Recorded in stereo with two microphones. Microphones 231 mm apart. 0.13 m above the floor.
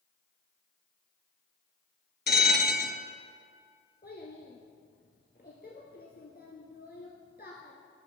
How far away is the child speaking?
About 1.4 m.